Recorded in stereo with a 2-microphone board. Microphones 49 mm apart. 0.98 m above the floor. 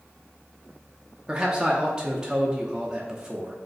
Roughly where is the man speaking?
Centre.